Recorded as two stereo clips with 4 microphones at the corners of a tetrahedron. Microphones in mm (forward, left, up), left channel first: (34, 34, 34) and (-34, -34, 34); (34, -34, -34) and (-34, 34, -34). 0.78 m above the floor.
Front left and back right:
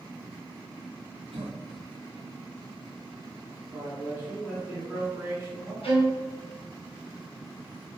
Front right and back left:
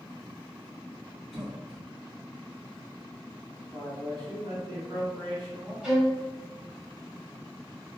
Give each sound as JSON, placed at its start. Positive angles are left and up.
{"t": 1.3, "sound": "a cough", "azimuth_deg": -135, "distance_m": 1.0}
{"t": 3.7, "sound": "a man speaking", "azimuth_deg": 170, "distance_m": 1.7}
{"t": 5.8, "sound": "a violin", "azimuth_deg": 55, "distance_m": 1.0}